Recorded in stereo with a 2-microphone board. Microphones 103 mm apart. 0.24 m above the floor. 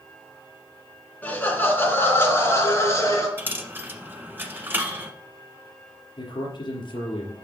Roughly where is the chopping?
No chopping in this recording.